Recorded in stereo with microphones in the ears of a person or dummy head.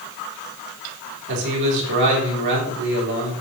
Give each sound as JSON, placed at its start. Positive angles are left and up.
{"t": 1.3, "sound": "a man speaking", "side_deg": -65, "distance_m": 4.0}